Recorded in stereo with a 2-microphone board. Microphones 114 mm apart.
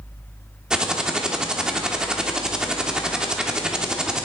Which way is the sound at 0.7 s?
5° right (ahead or behind).